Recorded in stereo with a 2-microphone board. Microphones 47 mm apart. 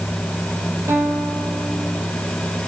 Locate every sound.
0.9 s a guitar: 80° right, 5.5 m